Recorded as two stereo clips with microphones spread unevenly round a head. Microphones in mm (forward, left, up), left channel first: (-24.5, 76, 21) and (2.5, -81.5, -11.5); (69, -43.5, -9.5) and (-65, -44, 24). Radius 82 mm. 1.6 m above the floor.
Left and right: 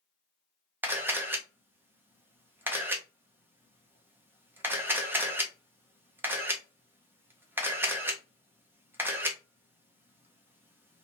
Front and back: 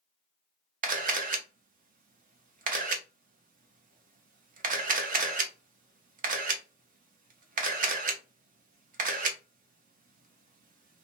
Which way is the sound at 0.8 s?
160° right.